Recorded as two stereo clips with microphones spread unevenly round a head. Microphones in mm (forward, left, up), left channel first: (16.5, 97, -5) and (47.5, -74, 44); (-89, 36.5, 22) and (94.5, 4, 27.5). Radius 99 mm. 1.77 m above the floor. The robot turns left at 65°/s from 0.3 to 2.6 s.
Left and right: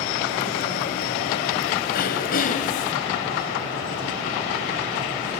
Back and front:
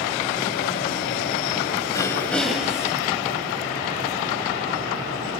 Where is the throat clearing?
115° left, 1.7 m; by 2.9 s 70° left, 1.7 m.